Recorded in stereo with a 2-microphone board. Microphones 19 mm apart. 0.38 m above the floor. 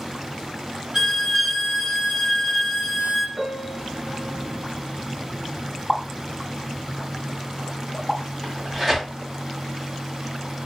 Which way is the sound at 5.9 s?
20° left (ahead or behind).